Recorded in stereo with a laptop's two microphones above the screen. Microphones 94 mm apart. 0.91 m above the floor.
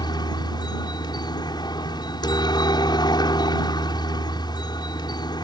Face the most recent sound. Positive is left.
turn(degrees=50)  # may be behind; listen again after turning